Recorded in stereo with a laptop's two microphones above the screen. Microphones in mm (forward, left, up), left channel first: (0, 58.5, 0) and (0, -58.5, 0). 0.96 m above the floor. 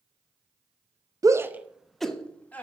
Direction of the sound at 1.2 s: 30° right (ahead or behind).